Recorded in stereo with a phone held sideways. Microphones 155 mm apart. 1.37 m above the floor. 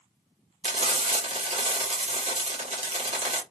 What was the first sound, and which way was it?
Frying, 40° right (ahead or behind).